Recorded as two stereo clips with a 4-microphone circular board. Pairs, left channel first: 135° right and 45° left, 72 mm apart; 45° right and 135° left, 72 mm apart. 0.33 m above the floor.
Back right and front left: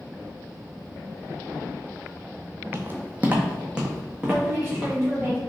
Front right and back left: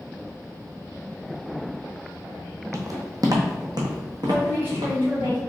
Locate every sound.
2.7 s footsteps: 95° left, 0.7 m; by 5.3 s 130° left, 1.9 m
4.3 s a woman speaking: 90° left, 1.6 m